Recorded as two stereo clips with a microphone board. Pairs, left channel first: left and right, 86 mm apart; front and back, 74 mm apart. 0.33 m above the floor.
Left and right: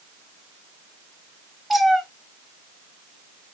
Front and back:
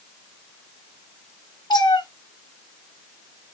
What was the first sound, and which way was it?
A cat meowing, straight ahead.